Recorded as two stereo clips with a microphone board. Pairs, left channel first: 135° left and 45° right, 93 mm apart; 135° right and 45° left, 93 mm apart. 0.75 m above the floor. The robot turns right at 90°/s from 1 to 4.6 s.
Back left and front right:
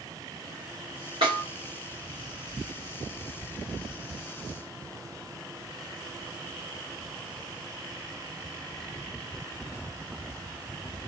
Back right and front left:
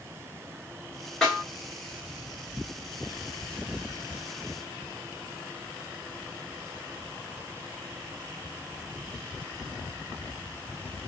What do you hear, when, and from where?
1.2 s a snare drum: 50° right, 1.9 m; by 1.4 s 30° right, 1.9 m